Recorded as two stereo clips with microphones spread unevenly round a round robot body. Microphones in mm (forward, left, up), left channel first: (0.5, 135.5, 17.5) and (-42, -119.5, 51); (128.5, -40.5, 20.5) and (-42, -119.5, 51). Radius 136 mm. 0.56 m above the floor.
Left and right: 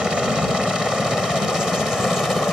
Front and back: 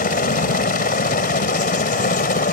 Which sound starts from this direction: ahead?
A helicopter, at 0.0 s.